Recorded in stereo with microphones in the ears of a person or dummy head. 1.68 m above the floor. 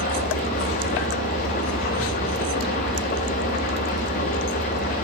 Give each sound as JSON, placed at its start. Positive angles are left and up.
{"t": 0.0, "sound": "an engine running", "side_deg": 45, "distance_m": 1.4}